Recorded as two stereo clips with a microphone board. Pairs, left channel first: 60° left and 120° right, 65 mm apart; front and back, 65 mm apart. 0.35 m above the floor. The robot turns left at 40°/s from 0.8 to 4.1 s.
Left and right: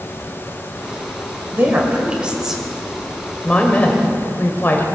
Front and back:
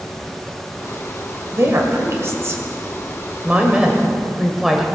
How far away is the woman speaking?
About 1.6 m.